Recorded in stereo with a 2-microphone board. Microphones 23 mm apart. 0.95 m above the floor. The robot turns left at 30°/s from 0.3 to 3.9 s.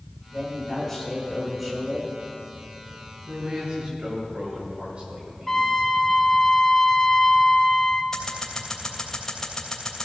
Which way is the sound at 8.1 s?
25° left (ahead or behind).